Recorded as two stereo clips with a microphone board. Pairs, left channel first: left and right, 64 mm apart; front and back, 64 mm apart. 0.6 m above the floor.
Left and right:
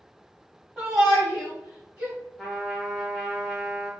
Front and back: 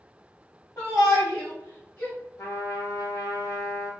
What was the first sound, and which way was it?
A shout, straight ahead.